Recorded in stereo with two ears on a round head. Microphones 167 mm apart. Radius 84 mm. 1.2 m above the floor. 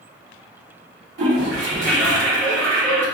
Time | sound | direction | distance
1.2 | a toilet flushing | 70° right (ahead or behind) | 1.6 m